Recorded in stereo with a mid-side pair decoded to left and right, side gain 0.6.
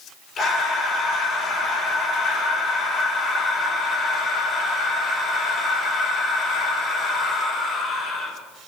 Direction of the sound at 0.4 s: 40° left.